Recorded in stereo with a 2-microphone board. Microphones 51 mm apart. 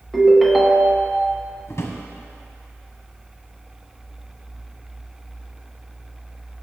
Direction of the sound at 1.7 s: 65° left (ahead or behind).